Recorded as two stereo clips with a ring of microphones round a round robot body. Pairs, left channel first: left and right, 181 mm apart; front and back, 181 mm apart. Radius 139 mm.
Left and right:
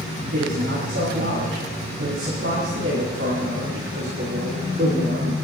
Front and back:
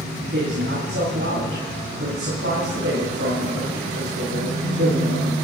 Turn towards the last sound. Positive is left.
turn(degrees=-135)